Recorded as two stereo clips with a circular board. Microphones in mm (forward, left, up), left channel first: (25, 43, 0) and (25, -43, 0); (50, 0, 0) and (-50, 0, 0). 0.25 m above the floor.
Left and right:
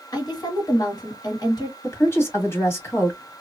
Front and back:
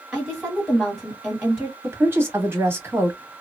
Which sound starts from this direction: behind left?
A woman speaking, at 1.8 s.